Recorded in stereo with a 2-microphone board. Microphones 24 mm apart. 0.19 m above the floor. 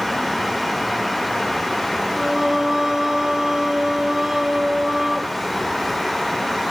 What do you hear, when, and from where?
2.1 s singing: 25° right (ahead or behind), 1.7 m